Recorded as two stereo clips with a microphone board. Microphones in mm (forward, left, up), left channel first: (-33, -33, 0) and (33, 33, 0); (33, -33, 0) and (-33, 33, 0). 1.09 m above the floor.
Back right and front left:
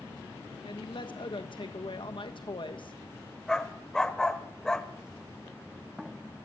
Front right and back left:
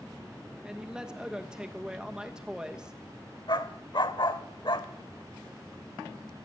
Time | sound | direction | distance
0.6 | a man speaking | 145° right | 1.4 m
3.5 | a dog barking | 55° right | 1.2 m